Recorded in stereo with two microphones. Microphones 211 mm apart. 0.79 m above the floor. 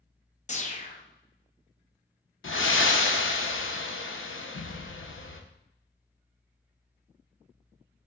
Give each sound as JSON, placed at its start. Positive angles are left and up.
{"t": 0.5, "sound": "a whoosh", "side_deg": 35, "distance_m": 0.5}
{"t": 2.4, "sound": "breathing", "side_deg": 75, "distance_m": 0.5}